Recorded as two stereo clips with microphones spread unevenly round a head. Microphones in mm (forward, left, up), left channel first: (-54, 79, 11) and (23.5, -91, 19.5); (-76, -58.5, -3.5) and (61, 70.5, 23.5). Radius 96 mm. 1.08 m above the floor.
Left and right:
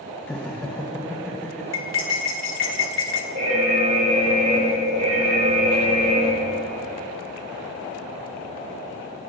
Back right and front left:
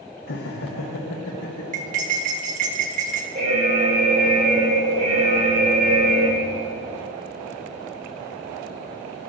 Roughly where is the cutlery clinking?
Left.